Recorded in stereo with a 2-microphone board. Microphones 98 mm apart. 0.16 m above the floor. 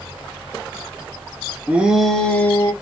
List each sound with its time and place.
1.7 s a shout: 15° right (ahead or behind), 1.3 m; by 2.7 s 30° left (ahead or behind), 1.6 m